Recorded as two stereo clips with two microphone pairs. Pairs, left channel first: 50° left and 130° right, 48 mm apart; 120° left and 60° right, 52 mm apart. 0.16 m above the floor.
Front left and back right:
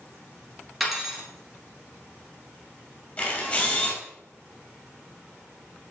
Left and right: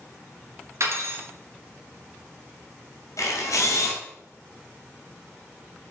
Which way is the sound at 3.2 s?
105° left.